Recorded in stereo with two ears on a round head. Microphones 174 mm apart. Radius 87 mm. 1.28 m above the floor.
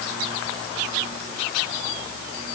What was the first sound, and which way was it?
Only background noise.